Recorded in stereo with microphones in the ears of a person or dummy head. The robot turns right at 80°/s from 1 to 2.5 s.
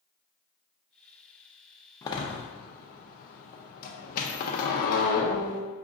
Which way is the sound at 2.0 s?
20° left (ahead or behind).